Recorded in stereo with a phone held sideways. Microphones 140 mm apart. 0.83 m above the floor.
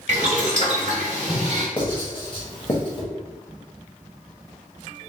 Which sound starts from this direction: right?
Boiling, at 0.1 s.